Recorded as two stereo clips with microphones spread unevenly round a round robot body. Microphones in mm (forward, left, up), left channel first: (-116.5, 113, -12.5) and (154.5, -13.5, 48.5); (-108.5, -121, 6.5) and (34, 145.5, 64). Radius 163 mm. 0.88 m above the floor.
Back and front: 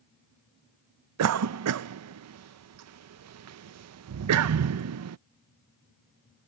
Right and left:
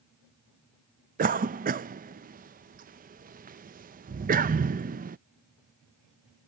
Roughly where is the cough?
Ahead.